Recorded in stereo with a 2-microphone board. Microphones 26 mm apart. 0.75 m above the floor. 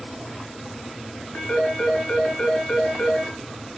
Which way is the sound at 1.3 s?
55° left (ahead or behind).